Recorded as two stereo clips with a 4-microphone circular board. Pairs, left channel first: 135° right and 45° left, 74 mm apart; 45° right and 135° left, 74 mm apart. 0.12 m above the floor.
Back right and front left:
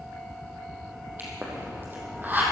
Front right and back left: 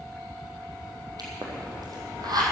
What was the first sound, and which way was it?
A pop, 110° left.